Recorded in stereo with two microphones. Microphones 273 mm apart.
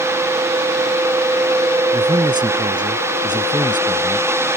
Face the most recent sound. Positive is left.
turn(degrees=-15)  # may be behind; listen again after turning